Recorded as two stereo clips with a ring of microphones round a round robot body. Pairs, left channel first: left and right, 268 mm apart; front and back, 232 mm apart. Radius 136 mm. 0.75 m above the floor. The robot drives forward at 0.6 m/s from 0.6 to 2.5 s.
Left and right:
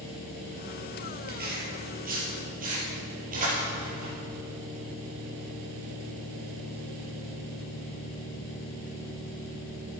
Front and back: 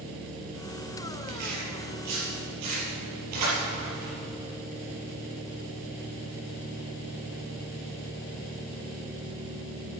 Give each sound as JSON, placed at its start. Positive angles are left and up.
{"t": 1.3, "sound": "tearing paper", "azimuth_deg": -145, "distance_m": 4.5}